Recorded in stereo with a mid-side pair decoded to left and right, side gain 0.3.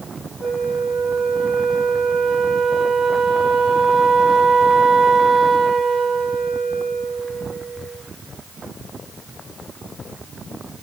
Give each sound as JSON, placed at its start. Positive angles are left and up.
{"t": 0.4, "sound": "a flute", "azimuth_deg": -60, "distance_m": 1.4}